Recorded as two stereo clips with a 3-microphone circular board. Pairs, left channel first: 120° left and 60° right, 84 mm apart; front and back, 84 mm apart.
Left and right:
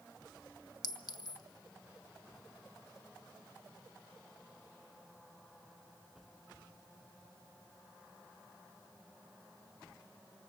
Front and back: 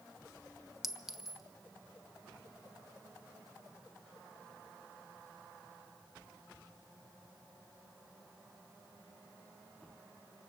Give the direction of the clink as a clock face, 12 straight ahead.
9 o'clock.